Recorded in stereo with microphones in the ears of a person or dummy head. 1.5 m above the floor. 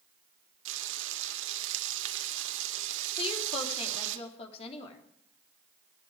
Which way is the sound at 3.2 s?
35° left (ahead or behind).